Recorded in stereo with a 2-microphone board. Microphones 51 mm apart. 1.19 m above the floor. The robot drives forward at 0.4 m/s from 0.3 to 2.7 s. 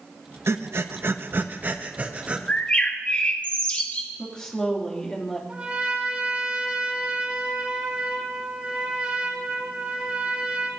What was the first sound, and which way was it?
Breathing, 60° right (ahead or behind).